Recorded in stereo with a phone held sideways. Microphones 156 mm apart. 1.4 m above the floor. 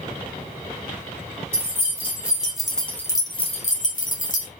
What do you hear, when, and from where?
1.5 s keys jangling: 15° right (ahead or behind), 1.9 m; by 4.5 s 55° left (ahead or behind), 1.1 m